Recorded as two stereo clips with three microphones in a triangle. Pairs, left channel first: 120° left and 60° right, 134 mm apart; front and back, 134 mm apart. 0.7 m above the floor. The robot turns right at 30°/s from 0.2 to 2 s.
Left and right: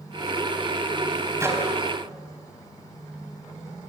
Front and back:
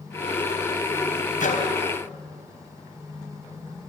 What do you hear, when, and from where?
1.4 s a microwave: 10° left, 3.5 m; by 1.7 s 20° left, 3.5 m